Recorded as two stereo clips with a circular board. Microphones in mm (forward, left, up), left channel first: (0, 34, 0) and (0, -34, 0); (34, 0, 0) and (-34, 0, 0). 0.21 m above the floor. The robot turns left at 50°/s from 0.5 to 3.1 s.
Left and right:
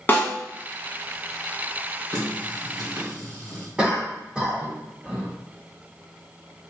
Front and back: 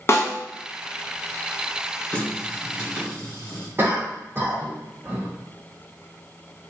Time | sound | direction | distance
0.1 | a snare drum | 35° left | 0.9 m
2.1 | a running tap | 65° right | 1.9 m
3.8 | a cough | 160° right | 1.4 m